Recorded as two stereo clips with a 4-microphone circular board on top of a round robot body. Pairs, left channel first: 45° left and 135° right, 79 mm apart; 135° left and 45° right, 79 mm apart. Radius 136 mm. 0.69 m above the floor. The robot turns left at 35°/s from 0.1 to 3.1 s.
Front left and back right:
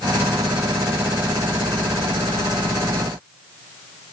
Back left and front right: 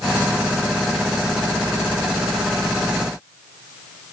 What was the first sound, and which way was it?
Only background noise.